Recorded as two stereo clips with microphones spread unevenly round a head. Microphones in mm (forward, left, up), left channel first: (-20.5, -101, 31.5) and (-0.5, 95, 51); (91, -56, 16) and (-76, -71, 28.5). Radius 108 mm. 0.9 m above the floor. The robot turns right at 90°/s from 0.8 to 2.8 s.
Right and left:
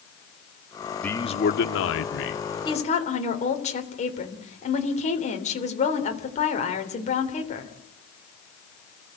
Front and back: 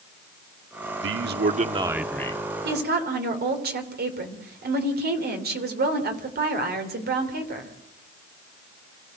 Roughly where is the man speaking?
Behind.